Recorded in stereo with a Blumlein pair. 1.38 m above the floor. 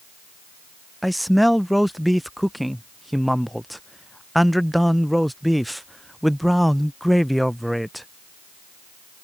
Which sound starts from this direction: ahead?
A man speaking, at 1.0 s.